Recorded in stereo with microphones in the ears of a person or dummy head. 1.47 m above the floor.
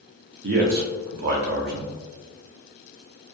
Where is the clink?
I don't hear a clink.